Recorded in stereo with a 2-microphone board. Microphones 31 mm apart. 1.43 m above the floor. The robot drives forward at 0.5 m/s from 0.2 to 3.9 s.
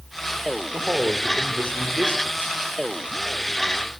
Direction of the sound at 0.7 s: 85° right.